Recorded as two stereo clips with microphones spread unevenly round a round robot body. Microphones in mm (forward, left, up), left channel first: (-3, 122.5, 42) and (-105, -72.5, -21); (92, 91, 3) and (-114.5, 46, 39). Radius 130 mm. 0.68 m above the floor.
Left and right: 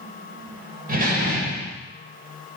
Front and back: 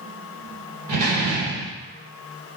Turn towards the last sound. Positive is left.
turn(degrees=-165)